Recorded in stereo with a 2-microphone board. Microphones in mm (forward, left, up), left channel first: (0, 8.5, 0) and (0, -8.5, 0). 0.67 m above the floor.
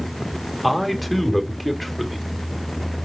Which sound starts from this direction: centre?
A man speaking, at 0.6 s.